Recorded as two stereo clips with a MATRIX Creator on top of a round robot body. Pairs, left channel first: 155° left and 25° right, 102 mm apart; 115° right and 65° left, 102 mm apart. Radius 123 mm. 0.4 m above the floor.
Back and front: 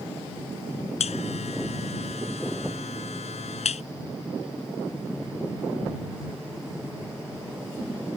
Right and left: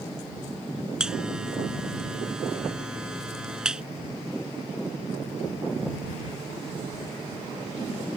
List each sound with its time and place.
1.0 s a buzzer: 150° left